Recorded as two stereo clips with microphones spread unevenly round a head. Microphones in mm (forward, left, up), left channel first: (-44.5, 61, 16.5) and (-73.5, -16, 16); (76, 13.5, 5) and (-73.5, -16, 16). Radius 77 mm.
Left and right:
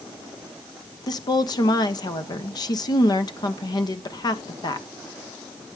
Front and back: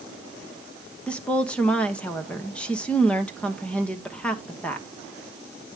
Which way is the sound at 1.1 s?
95° left.